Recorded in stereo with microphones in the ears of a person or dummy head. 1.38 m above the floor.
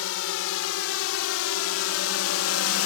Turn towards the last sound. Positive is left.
turn(degrees=85)